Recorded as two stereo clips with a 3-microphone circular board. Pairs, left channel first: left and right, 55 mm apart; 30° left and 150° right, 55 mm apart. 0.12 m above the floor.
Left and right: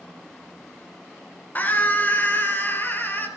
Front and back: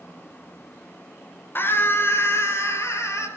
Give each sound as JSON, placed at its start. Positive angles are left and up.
{"t": 1.6, "sound": "a scream", "azimuth_deg": 50, "distance_m": 2.5}